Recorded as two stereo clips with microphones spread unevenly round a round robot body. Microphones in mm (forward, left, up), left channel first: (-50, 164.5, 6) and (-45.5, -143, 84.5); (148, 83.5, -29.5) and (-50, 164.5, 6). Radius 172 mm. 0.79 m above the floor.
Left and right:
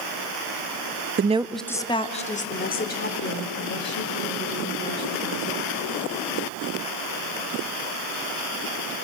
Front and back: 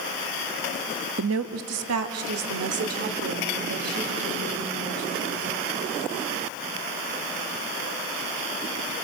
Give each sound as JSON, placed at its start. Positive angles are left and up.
{"t": 1.2, "sound": "a woman speaking", "azimuth_deg": -155, "distance_m": 0.6}